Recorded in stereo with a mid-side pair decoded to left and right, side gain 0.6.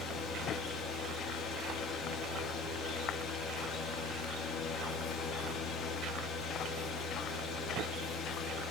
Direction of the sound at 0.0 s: 50° left.